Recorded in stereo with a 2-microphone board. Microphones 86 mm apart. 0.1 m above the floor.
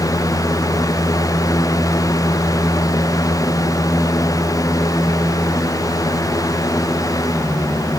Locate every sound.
Only background noise.